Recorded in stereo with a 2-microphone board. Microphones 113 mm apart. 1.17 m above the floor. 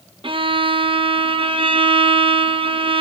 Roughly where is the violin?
Right.